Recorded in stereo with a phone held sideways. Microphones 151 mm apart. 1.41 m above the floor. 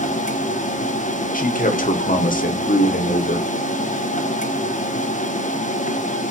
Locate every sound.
0.0 s a machine running: 60° left (ahead or behind), 0.8 m
1.3 s a man speaking: 75° left (ahead or behind), 1.1 m